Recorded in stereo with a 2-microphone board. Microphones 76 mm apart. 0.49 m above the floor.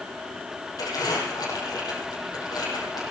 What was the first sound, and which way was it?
Crumpling, 60° left (ahead or behind).